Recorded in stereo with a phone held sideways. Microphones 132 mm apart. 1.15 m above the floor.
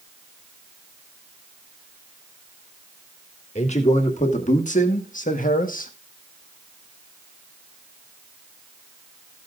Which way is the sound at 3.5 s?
55° left (ahead or behind).